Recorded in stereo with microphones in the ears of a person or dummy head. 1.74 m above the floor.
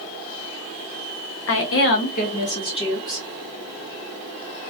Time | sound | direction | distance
1.5 | a woman speaking | 70° left (ahead or behind) | 0.9 m